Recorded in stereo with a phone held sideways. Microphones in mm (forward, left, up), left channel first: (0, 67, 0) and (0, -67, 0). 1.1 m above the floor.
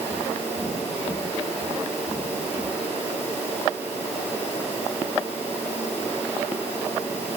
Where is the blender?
No blender in this recording.